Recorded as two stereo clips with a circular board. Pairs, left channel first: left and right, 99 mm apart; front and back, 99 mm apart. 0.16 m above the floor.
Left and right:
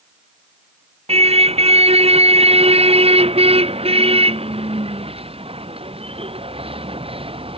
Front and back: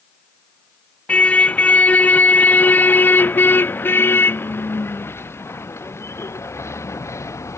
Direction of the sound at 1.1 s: 75° right.